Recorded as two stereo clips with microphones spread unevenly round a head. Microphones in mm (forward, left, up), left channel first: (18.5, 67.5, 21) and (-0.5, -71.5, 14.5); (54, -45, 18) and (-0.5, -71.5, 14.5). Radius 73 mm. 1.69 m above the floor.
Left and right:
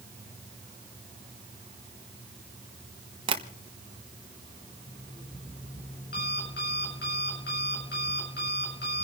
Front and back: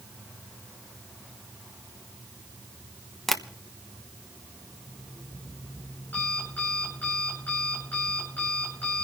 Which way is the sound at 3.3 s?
55° right.